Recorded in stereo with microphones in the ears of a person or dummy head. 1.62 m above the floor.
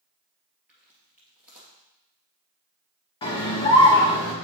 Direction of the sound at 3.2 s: 30° left (ahead or behind).